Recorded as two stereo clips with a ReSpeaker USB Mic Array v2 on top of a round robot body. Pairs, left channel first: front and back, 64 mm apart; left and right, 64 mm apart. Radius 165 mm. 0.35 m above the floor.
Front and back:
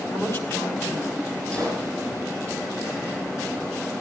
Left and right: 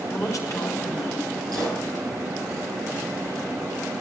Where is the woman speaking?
55° left, 4.5 m.